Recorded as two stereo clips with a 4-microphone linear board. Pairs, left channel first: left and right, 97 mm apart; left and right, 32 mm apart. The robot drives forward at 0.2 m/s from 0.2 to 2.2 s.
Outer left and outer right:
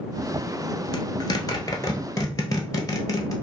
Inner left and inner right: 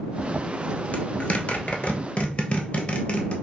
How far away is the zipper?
About 0.9 m.